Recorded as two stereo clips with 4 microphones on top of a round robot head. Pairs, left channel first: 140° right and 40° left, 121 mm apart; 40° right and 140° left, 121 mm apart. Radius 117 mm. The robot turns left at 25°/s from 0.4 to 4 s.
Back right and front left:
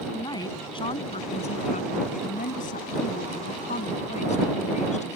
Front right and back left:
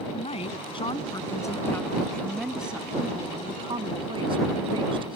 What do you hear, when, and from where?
0.1 s a woman speaking: 80° right; by 5.2 s 170° right